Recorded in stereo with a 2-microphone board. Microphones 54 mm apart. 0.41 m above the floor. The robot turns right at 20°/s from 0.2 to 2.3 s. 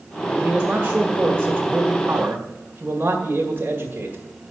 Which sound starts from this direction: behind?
A man speaking, at 0.3 s.